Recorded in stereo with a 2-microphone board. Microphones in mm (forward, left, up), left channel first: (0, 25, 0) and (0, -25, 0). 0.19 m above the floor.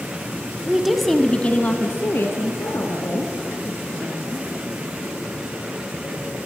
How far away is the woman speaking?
About 1.2 m.